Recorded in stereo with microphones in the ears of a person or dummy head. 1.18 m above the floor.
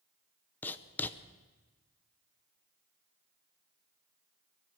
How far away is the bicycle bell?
No bicycle bell in this recording.